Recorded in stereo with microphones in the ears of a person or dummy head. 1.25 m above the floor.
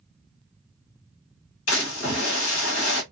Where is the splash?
90° left, 1.4 m.